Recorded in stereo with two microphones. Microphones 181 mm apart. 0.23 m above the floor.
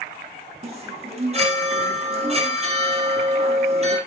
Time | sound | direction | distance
0.6 | a chime | 35° right (ahead or behind) | 3.5 m